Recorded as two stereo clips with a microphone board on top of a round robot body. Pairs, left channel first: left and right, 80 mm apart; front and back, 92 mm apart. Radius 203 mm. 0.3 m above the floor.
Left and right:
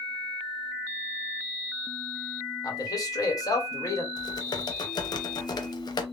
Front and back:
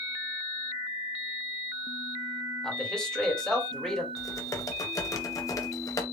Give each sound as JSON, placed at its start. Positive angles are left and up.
{"t": 2.6, "sound": "a man speaking", "azimuth_deg": 80, "distance_m": 2.0}
{"t": 4.2, "sound": "typing on a keyboard", "azimuth_deg": 55, "distance_m": 0.8}